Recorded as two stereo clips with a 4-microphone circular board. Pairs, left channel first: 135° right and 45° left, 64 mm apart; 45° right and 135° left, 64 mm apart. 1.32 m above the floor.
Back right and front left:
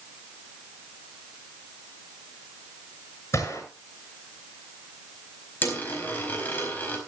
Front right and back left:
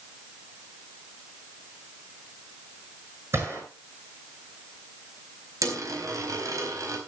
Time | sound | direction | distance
3.3 | a gunshot | straight behind | 7 m
5.6 | a dropped coin | 165° left | 4 m